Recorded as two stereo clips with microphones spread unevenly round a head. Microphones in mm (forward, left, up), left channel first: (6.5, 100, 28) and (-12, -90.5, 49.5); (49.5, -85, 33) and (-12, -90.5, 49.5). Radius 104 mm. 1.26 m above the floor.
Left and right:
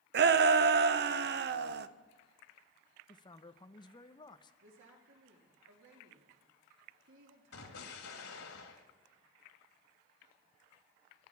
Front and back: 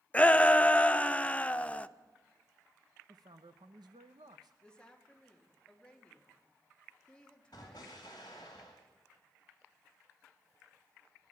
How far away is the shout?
About 0.8 m.